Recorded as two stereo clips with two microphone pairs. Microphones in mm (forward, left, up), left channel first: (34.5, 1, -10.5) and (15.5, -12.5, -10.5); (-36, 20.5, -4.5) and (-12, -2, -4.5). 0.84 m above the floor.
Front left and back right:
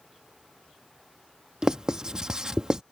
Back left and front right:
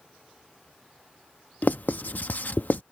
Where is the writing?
155° left.